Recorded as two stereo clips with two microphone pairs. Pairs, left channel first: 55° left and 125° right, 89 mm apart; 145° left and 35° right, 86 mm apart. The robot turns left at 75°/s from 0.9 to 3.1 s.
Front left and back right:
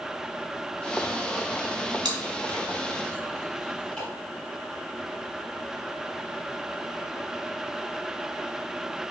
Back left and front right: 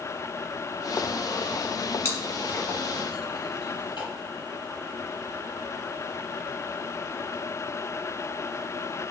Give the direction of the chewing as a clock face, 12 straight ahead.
5 o'clock.